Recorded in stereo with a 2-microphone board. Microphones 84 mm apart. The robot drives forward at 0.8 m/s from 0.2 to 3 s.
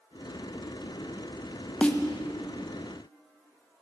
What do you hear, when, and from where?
1.8 s a snare drum: 15° left (ahead or behind), 0.7 m; by 2.0 s 10° left (ahead or behind), 0.9 m